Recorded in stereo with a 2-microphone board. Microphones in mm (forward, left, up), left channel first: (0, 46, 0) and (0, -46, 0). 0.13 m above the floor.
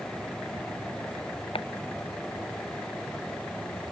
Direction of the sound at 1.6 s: 80° left.